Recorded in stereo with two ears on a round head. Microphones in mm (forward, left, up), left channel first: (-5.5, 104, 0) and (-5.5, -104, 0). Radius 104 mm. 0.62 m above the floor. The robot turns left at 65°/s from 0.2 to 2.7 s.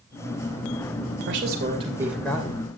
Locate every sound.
1.3 s a man speaking: 120° right, 2.5 m; by 2.7 s 145° left, 2.5 m